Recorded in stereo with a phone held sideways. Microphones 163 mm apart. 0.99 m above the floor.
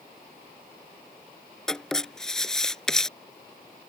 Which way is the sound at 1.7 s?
5° left (ahead or behind).